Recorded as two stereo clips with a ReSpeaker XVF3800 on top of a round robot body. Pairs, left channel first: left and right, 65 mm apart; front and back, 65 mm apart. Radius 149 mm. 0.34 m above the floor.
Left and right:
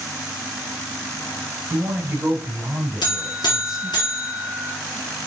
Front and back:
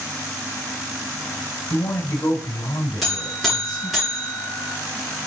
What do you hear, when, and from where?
1.7 s a man speaking: 30° right, 3 m; by 4.0 s 5° right, 3.5 m
3.0 s a buzzer: 90° left, 3 m